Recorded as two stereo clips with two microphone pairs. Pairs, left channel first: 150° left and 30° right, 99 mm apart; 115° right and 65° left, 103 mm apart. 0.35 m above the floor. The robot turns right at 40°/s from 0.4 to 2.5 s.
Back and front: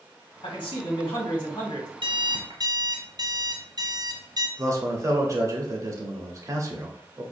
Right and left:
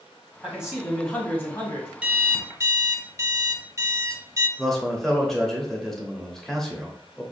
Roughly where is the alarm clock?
Ahead.